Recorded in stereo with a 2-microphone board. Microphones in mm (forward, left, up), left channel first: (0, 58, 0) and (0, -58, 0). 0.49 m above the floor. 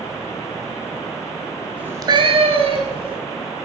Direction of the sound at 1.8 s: 10° right (ahead or behind).